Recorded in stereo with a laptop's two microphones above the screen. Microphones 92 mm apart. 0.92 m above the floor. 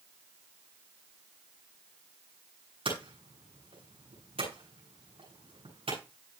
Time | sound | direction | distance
2.9 | hammering | 80° right | 8 m